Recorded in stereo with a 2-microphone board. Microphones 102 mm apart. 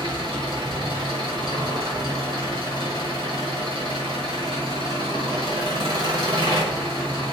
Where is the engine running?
55° right (ahead or behind), 1.7 m.